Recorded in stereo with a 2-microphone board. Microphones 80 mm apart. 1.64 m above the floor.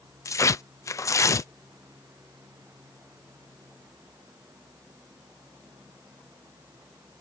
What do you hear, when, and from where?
0.2 s tearing paper: 40° left (ahead or behind)